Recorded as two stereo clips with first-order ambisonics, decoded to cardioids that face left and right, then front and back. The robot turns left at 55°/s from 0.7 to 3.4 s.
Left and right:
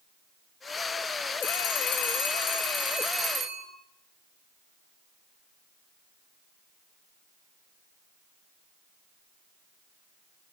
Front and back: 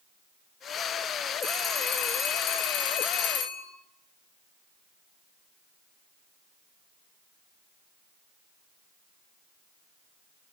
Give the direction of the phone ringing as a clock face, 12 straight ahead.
9 o'clock.